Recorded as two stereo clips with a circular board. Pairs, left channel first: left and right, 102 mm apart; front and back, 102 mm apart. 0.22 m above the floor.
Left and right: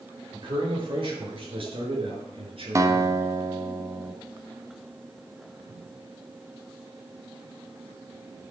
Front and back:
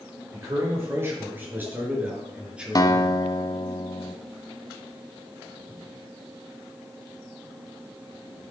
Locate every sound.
0.3 s a man speaking: 120° right, 5 m; by 3.3 s 95° right, 3.5 m
2.8 s a guitar: 40° right, 1.0 m